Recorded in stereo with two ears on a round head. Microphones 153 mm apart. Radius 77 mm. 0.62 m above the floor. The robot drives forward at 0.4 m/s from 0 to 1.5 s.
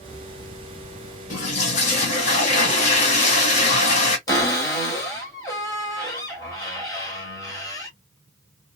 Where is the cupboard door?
25° left (ahead or behind), 1.8 m.